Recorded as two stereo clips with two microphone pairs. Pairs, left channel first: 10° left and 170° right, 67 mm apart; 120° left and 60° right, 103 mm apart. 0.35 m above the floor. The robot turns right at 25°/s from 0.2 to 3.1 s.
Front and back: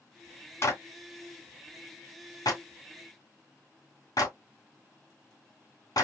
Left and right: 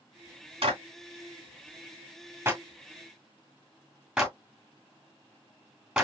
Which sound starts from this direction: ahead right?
A clap, at 0.6 s.